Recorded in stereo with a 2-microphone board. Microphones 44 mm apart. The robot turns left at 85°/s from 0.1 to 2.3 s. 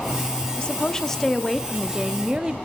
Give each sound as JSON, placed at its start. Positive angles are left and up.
{"t": 0.6, "sound": "a woman speaking", "side_deg": 20, "distance_m": 0.7}